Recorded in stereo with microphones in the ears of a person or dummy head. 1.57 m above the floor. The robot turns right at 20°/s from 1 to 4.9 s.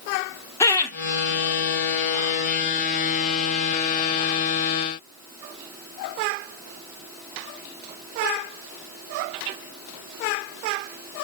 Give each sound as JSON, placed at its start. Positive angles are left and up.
{"t": 0.6, "sound": "laughter", "side_deg": 20, "distance_m": 0.8}